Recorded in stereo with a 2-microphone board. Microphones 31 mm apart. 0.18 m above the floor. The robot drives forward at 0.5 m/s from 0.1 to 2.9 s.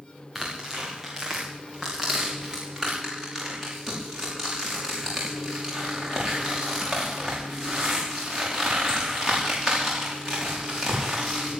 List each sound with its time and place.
0.3 s tearing paper: centre (ahead or behind), 6.5 m